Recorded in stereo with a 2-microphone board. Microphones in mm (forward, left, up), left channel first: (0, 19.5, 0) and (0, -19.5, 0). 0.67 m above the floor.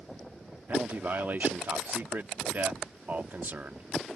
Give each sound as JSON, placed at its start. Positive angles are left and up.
{"t": 0.7, "sound": "a man speaking", "side_deg": -50}